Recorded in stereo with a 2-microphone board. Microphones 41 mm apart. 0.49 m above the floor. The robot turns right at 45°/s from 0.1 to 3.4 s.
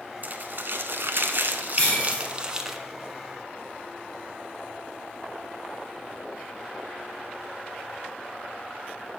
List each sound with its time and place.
0.2 s crumpling: 120° right, 0.7 m; by 2.8 s 5° right, 0.7 m
1.8 s breaking glass: 15° left (ahead or behind), 3 m; by 2.2 s 35° left (ahead or behind), 3 m